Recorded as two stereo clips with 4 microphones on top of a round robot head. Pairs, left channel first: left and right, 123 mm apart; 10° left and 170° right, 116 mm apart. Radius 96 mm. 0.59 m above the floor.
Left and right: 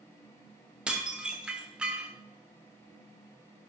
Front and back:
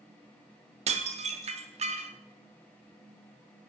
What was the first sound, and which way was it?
Dishes clattering, 170° right.